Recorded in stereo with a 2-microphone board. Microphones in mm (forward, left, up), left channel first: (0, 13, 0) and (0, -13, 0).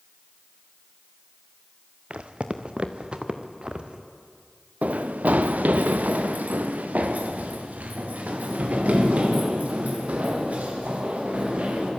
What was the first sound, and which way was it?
Footsteps, 55° right (ahead or behind).